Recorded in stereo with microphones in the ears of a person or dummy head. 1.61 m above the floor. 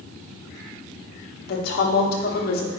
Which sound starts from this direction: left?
A woman speaking, at 1.5 s.